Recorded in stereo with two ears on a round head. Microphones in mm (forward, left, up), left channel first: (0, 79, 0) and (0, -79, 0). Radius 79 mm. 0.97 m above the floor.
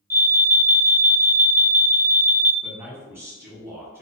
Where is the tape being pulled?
No tape being pulled in this recording.